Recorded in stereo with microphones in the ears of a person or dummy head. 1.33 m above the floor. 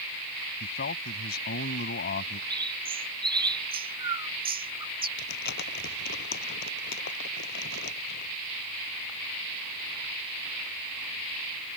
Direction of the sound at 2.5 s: 20° right (ahead or behind).